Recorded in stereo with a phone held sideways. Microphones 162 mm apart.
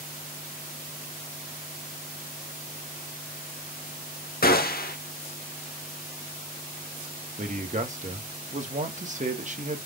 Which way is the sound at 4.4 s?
70° left (ahead or behind).